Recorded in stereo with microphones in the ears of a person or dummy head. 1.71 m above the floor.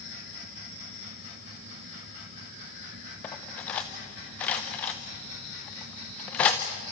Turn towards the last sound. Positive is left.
turn(degrees=10)  # may be behind; listen again after turning